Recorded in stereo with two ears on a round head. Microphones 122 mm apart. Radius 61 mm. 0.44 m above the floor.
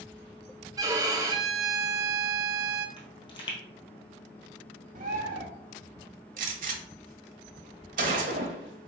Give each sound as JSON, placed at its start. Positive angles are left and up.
{"t": 0.8, "sound": "a violin", "side_deg": -25, "distance_m": 0.5}
{"t": 3.0, "sound": "a pop", "side_deg": 35, "distance_m": 1.8}
{"t": 5.0, "sound": "a bird", "side_deg": -65, "distance_m": 1.0}
{"t": 6.4, "sound": "a gunshot", "side_deg": -65, "distance_m": 0.9}